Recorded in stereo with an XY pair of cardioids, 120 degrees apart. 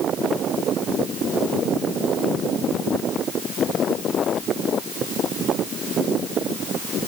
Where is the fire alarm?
No fire alarm in this recording.